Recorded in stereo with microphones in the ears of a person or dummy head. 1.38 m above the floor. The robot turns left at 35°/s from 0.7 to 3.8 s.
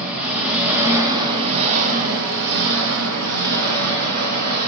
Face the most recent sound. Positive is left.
turn(degrees=-115)